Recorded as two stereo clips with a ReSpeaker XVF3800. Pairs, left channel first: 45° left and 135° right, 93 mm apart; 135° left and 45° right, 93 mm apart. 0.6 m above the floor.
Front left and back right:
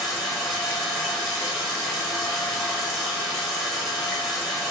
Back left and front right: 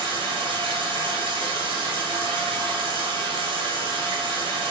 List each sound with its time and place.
0.0 s running water: 40° right, 0.9 m